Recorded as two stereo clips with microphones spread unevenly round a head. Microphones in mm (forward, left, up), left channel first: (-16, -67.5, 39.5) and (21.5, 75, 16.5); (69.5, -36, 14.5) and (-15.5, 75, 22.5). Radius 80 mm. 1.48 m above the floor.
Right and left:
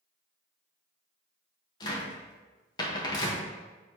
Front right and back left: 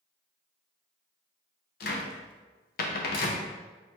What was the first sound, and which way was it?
A cupboard door, 50° right.